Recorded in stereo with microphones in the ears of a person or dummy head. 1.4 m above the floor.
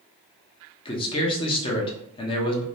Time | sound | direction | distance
0.8 | a man speaking | 25° left (ahead or behind) | 0.6 m